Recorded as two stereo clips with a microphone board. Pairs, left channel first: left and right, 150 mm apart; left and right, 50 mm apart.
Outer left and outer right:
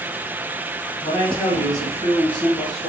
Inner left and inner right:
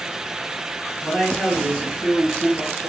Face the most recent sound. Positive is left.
turn(degrees=0)  # may be behind; listen again after turning